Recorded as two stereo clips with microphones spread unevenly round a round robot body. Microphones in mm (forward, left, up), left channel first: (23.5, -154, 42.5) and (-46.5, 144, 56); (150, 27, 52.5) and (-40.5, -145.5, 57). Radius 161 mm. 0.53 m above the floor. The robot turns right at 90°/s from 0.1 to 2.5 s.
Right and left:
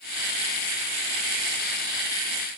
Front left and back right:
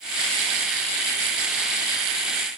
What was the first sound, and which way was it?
Only background noise.